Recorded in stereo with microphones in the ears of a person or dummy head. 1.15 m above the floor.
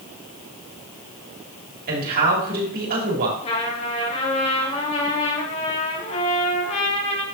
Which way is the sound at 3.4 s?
35° left (ahead or behind).